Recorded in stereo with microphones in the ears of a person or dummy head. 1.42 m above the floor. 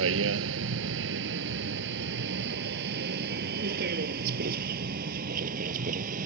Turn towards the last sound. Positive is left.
turn(degrees=-45)  # may be behind; listen again after turning